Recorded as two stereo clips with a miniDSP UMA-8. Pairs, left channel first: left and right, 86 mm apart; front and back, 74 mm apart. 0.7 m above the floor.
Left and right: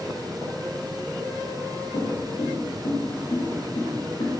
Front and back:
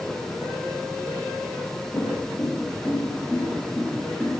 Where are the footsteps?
75° left, 4 m; by 4.3 s 90° left, 5.5 m.